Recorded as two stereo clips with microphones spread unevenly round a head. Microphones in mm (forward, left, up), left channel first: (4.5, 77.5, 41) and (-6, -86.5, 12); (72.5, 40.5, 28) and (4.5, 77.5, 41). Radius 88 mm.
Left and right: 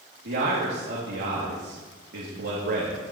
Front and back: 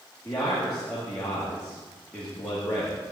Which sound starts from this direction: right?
A man speaking, at 0.2 s.